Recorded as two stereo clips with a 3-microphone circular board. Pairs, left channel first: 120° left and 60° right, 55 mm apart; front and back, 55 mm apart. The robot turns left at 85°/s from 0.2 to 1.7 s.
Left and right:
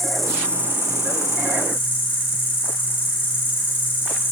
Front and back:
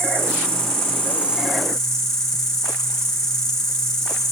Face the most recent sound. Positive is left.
turn(degrees=80)